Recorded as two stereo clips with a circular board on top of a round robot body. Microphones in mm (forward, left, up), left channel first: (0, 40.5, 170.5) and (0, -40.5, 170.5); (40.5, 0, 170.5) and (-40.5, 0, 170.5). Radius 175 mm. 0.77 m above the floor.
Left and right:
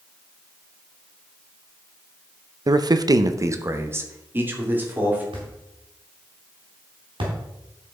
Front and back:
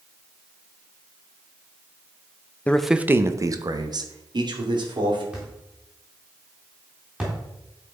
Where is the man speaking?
70° right, 0.7 m; by 5.2 s 160° right, 3 m.